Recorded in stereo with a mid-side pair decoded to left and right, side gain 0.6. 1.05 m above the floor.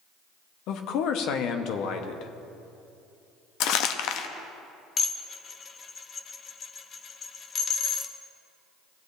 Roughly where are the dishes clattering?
Ahead left.